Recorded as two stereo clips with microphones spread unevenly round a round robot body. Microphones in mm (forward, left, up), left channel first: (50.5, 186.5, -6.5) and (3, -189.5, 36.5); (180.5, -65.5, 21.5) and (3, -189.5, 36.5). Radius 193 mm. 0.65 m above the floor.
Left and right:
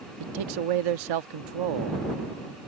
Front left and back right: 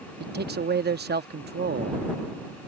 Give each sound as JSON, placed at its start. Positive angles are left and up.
{"t": 0.2, "sound": "a man speaking", "azimuth_deg": -110}